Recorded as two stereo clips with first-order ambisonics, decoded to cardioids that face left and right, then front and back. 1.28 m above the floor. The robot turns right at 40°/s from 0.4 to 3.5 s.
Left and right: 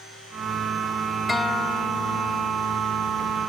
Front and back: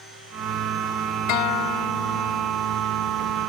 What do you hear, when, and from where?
1.3 s a guitar: 10° left; by 2.5 s 60° left